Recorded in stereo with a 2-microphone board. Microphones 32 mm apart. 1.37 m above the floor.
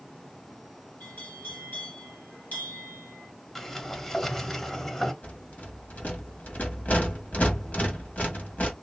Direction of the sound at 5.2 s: 55° left (ahead or behind).